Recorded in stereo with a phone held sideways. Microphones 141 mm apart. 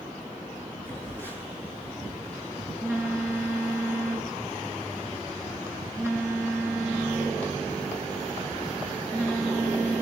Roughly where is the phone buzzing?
Centre.